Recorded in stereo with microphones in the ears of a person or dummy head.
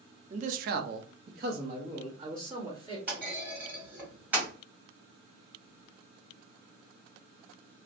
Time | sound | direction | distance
0.3 | a man speaking | 40° right (ahead or behind) | 0.5 m
3.1 | a clunk | 10° right (ahead or behind) | 1.6 m